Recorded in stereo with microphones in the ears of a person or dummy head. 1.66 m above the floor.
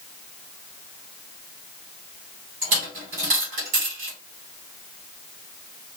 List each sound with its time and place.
2.6 s a dropped coin: 40° right (ahead or behind), 1.9 m